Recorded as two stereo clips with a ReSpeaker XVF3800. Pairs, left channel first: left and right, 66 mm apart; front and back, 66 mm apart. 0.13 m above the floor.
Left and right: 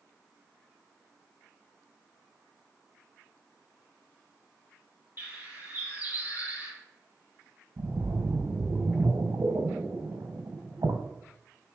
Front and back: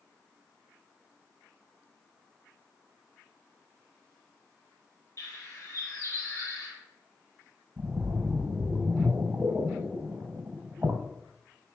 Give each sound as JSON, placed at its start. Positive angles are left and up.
{"t": 5.2, "sound": "a bird", "azimuth_deg": -30, "distance_m": 4.0}
{"t": 7.8, "sound": "a splash", "azimuth_deg": -115, "distance_m": 2.0}